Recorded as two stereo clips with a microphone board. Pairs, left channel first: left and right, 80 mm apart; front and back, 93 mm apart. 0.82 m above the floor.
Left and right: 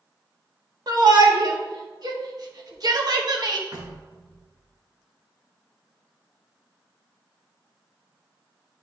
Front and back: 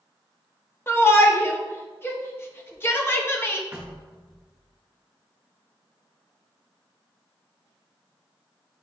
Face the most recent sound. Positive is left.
turn(degrees=-110)